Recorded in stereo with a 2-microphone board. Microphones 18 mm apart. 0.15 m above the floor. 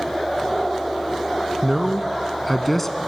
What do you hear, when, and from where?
1.6 s a man speaking: 25° right (ahead or behind), 1.1 m; by 3.0 s 15° left (ahead or behind), 1.1 m